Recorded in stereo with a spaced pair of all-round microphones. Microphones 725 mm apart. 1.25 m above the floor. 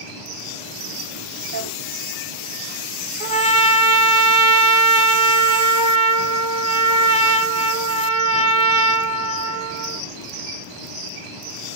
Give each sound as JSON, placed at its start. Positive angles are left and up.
{"t": 1.5, "sound": "a drawer", "side_deg": -25, "distance_m": 2.0}
{"t": 3.2, "sound": "a trumpet", "side_deg": -65, "distance_m": 1.2}